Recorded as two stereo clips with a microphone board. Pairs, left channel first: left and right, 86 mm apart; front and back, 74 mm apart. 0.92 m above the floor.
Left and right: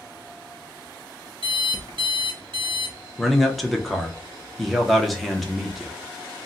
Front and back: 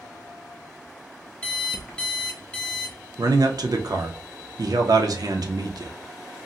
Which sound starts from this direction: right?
An alarm clock, at 1.4 s.